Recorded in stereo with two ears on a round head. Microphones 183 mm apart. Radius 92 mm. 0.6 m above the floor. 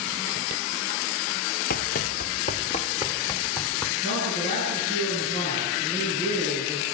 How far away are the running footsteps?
About 0.8 m.